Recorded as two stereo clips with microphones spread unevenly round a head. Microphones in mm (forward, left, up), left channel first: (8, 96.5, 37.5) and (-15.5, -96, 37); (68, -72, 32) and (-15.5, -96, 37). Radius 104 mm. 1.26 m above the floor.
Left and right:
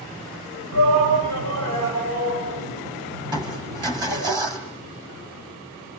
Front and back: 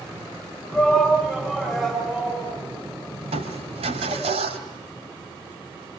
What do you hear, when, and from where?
0.7 s a shout: 75° right, 7.5 m
3.2 s crushing: 170° right, 3 m